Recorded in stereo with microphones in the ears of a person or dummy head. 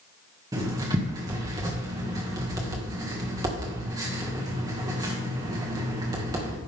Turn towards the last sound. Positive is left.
turn(degrees=-15)  # may be behind; listen again after turning